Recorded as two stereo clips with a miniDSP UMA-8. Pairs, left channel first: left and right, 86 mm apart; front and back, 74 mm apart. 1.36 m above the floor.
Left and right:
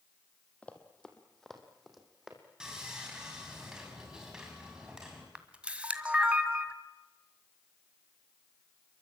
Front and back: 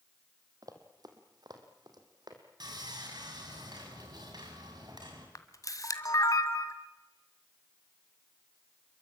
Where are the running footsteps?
165° left, 3 m; by 2.4 s 175° right, 4.5 m.